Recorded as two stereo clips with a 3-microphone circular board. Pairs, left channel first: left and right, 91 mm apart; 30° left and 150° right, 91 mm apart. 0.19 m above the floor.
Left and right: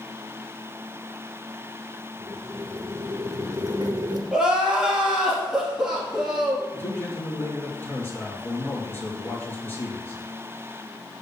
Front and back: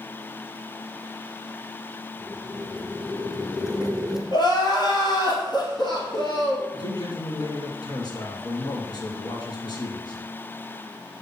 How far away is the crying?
About 1.9 m.